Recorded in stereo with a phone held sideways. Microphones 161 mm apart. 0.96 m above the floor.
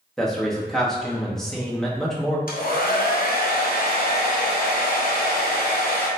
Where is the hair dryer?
65° left (ahead or behind), 0.8 m.